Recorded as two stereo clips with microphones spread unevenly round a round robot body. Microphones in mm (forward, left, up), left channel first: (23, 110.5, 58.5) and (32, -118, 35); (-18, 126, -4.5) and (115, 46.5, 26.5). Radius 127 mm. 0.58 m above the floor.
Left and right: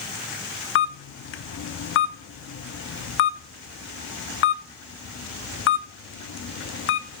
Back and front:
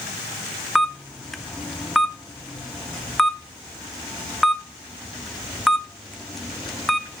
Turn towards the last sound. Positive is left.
turn(degrees=70)